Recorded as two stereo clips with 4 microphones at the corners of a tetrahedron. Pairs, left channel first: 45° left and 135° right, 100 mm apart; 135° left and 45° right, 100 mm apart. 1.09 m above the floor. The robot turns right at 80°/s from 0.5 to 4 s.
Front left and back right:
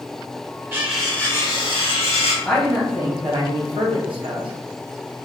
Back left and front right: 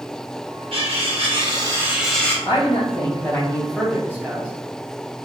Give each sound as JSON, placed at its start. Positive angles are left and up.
{"t": 0.7, "sound": "cutlery clinking", "azimuth_deg": -70, "distance_m": 0.9}
{"t": 2.5, "sound": "a man speaking", "azimuth_deg": 120, "distance_m": 0.9}